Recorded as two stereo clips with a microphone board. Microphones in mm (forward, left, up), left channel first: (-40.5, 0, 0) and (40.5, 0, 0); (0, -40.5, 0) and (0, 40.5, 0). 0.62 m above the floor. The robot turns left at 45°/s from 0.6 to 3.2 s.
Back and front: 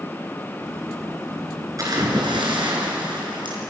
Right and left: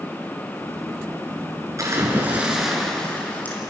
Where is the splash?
45° left, 5 m; by 3.6 s 20° right, 5 m.